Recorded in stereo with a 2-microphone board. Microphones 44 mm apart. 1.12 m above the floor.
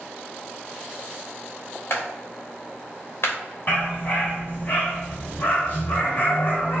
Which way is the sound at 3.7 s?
45° left (ahead or behind).